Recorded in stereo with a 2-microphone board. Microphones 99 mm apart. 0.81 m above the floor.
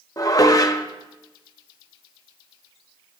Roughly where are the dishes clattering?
Left.